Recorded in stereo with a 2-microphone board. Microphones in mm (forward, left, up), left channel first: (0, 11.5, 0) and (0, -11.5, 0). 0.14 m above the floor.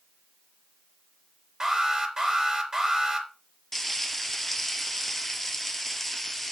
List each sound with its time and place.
1.6 s an alarm: 20° right (ahead or behind), 3.5 m
3.7 s frying: 15° left (ahead or behind), 1.0 m